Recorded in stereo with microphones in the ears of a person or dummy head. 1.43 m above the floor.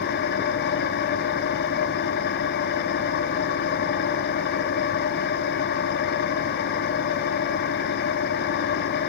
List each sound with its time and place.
0.0 s an engine running: 55° left (ahead or behind), 1.5 m